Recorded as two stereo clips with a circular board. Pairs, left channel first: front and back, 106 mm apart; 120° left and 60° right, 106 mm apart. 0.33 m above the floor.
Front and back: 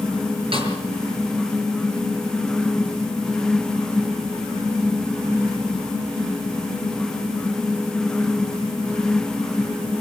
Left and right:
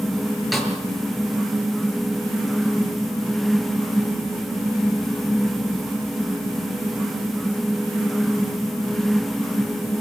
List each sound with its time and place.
0.5 s a snare drum: 150° right, 6 m